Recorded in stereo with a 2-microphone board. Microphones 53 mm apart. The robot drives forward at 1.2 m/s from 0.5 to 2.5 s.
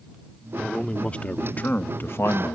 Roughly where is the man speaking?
Centre.